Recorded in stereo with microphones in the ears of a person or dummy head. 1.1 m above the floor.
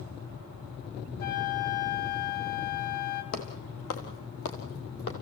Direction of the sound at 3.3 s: 75° left (ahead or behind).